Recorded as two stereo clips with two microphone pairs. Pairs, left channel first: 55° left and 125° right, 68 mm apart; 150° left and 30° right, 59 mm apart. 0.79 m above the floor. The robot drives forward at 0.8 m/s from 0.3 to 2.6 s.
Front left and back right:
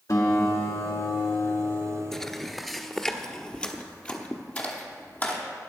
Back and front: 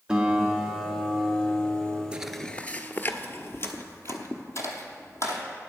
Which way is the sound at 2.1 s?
10° right.